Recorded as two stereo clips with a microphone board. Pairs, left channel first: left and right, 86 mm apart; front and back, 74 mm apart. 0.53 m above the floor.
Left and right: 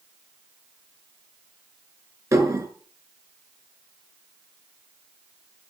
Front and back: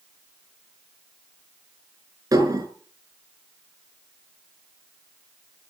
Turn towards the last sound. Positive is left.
turn(degrees=-140)